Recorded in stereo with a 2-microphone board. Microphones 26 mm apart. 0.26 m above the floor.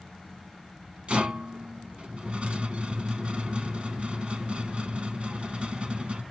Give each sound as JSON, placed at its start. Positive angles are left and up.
{"t": 1.1, "sound": "a rattle", "side_deg": -45, "distance_m": 0.8}